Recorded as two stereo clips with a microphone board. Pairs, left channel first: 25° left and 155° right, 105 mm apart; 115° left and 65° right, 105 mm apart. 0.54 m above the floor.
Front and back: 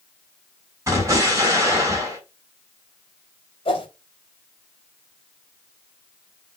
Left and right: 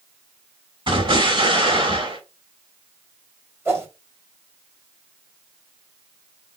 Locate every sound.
0.9 s an explosion: 100° right, 3.5 m
3.6 s a whoosh: 5° right, 2.5 m